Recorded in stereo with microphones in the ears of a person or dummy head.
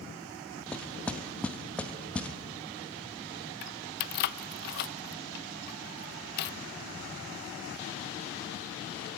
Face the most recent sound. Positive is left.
turn(degrees=55)  # may be behind; listen again after turning